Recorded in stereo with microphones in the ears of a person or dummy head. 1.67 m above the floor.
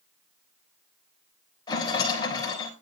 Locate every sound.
1.7 s a rattle: 20° left (ahead or behind), 4 m